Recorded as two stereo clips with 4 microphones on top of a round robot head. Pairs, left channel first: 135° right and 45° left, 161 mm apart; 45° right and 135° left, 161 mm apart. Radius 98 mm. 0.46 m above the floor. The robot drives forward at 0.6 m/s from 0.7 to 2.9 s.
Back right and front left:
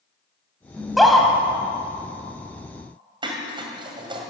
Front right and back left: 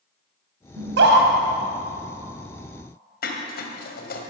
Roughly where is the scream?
Behind left.